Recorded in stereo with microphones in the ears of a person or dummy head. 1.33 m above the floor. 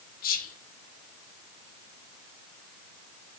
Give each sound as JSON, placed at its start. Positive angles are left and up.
{"t": 0.2, "sound": "whispering", "side_deg": 50, "distance_m": 0.7}